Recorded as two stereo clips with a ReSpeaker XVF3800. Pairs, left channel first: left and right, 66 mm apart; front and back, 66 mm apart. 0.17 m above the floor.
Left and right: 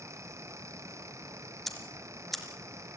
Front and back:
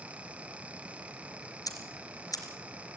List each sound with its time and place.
1.7 s ticking: straight ahead, 3 m